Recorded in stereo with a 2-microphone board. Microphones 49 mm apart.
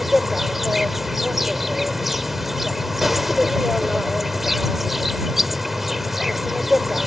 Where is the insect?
5° right (ahead or behind).